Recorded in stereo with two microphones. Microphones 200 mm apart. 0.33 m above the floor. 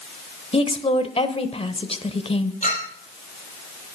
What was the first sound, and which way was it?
A woman speaking, 30° left (ahead or behind).